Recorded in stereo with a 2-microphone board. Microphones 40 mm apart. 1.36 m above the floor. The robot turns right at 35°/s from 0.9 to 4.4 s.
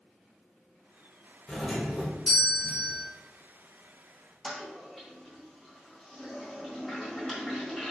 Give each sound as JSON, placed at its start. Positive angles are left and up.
{"t": 1.5, "sound": "a doorbell", "azimuth_deg": 155, "distance_m": 0.6}
{"t": 4.4, "sound": "a toilet flushing", "side_deg": 0, "distance_m": 0.8}